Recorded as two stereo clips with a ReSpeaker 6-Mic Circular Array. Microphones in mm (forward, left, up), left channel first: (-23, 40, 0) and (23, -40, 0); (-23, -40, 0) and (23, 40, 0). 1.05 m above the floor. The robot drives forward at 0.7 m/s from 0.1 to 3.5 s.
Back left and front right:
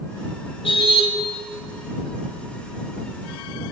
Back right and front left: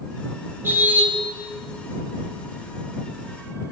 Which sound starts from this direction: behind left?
A car horn, at 0.6 s.